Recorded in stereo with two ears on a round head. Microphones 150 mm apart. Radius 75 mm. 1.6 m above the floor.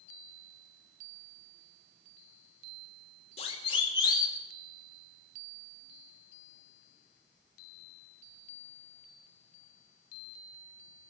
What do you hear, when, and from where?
3.4 s a siren: 35° left (ahead or behind), 2.5 m; by 4.4 s 20° left (ahead or behind), 2.5 m